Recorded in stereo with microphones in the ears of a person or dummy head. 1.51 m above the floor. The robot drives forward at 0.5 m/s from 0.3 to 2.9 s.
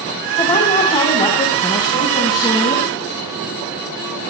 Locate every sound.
0.4 s a woman speaking: 20° left (ahead or behind), 3.5 m; by 2.9 s 15° left (ahead or behind), 5 m